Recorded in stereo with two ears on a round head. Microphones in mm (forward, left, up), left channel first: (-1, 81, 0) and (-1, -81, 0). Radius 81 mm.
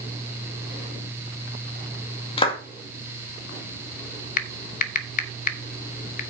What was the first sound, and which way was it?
A clap, 30° left (ahead or behind).